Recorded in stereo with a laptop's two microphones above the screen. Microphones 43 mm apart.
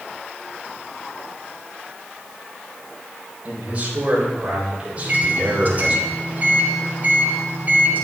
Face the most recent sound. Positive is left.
turn(degrees=-40)  # may be behind; listen again after turning